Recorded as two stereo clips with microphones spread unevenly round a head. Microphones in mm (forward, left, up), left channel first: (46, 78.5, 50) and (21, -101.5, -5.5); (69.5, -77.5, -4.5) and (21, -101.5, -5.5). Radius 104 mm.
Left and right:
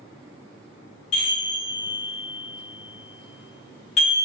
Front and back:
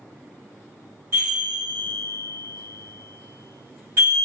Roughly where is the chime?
Behind left.